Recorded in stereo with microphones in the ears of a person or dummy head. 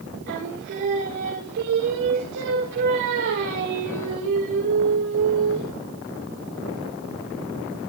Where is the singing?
60° right (ahead or behind), 5.5 m.